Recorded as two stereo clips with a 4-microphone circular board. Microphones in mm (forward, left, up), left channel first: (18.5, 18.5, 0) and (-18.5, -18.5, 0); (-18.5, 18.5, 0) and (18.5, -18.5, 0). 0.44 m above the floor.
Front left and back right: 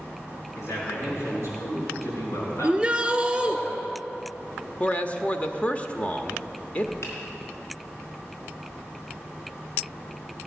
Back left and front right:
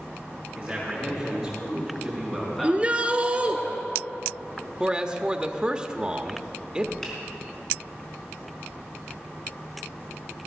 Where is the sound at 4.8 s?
10° left, 0.8 m.